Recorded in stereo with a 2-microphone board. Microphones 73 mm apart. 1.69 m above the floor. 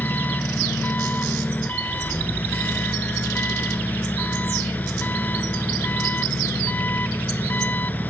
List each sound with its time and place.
0.0 s an engine running: 25° left (ahead or behind)